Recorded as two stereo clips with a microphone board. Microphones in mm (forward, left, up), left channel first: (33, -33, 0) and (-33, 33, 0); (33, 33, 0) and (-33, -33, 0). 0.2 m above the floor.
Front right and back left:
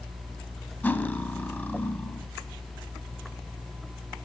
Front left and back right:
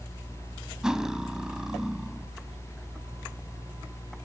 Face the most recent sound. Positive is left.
turn(degrees=-65)